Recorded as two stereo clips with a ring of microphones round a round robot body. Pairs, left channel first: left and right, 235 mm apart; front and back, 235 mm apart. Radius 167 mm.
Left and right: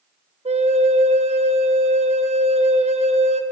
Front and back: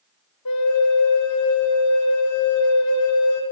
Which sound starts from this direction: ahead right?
A flute, at 0.5 s.